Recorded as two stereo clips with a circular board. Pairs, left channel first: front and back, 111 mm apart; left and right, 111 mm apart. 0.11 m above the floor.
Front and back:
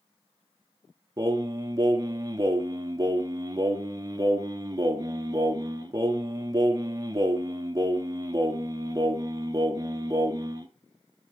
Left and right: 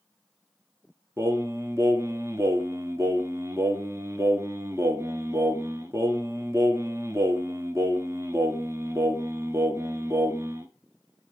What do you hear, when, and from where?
1.2 s singing: 140° right, 1.2 m